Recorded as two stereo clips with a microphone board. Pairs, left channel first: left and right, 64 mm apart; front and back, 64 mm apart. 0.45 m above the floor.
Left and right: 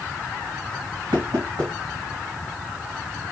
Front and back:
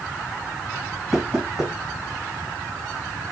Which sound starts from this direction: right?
Knocking, at 1.1 s.